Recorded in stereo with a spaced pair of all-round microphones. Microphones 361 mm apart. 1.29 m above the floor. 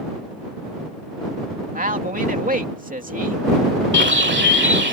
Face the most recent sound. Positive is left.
turn(degrees=-30)  # may be behind; listen again after turning